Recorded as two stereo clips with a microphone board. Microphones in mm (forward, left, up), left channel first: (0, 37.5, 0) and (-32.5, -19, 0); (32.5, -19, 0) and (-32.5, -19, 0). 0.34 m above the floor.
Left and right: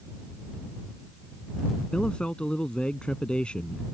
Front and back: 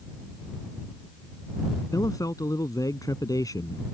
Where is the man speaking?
15° right.